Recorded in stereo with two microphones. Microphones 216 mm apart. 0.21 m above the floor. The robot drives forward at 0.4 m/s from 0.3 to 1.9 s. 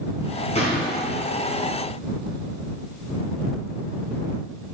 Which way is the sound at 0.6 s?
35° left (ahead or behind).